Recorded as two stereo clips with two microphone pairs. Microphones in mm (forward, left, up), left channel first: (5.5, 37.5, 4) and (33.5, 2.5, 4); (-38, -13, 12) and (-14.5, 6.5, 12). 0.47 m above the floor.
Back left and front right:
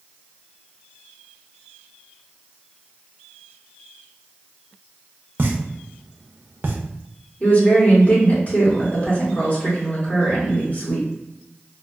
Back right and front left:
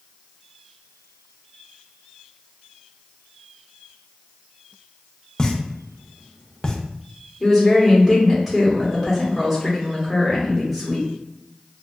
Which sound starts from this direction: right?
A pop, at 5.4 s.